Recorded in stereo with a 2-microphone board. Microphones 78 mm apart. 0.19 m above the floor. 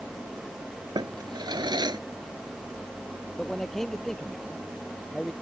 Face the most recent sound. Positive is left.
turn(degrees=5)  # may be behind; listen again after turning